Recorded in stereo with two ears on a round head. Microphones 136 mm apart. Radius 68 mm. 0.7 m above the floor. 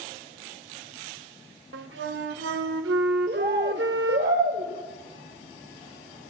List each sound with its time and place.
1.7 s a flute: 85° right, 0.8 m
3.3 s a bird: 70° right (ahead or behind), 2.5 m